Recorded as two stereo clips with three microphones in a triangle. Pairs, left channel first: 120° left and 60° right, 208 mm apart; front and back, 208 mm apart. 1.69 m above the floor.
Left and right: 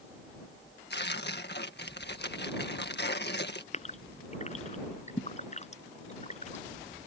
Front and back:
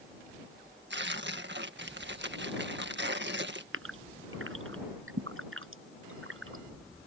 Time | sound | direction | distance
0.9 | tearing paper | 150° left | ?
3.7 | a gasp | 175° left | ?